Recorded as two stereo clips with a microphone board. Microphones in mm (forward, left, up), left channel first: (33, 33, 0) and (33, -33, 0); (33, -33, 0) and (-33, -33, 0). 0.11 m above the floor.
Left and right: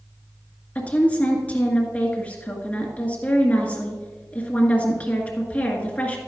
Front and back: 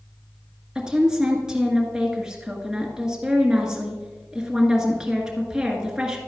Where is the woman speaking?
120° left, 1.5 m.